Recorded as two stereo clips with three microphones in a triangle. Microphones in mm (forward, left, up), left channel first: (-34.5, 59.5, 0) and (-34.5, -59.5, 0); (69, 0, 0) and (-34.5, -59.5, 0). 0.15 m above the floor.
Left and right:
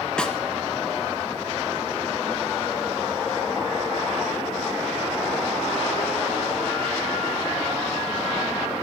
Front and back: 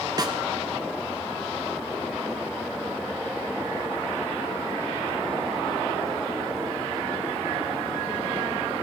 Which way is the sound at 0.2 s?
170° left.